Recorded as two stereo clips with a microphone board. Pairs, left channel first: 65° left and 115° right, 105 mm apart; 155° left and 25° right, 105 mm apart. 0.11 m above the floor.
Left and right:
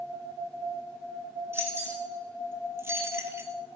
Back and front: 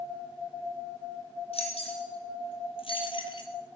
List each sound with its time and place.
1.5 s keys jangling: straight behind, 3 m; by 3.5 s 175° right, 1.4 m